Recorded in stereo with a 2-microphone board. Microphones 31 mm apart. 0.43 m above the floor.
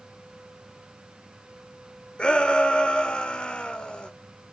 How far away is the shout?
About 1.1 m.